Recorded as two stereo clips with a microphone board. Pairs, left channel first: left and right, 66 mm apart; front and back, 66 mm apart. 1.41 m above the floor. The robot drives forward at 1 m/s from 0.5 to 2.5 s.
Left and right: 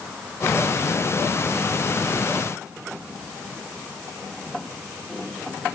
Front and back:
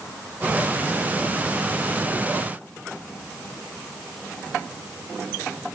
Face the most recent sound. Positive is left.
No sound to turn to.